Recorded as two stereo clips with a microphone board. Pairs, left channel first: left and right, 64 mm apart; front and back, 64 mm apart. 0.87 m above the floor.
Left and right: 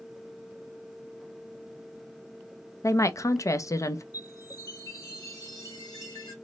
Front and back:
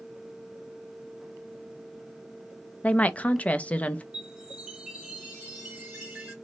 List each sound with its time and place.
2.8 s a woman speaking: 65° left, 0.5 m
4.1 s a chime: 110° left, 2 m